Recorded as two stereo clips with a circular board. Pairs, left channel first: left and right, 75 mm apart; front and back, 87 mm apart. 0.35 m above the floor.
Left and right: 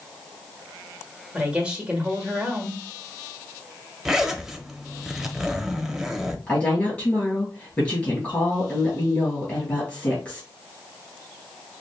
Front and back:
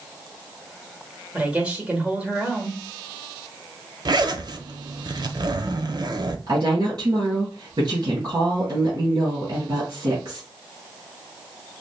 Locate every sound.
1.3 s a woman speaking: 130° right, 1.2 m
4.0 s a zipper: 175° right, 0.5 m
6.5 s a woman speaking: 150° left, 3 m